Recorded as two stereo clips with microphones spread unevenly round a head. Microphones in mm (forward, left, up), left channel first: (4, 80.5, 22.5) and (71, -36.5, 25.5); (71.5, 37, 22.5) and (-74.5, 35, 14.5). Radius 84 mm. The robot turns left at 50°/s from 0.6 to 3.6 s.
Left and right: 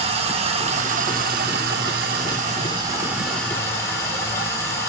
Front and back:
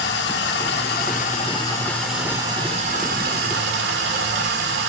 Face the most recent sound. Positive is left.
turn(degrees=-165)